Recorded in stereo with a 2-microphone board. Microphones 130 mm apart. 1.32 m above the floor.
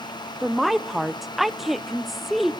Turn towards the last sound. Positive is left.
turn(degrees=0)  # may be behind; listen again after turning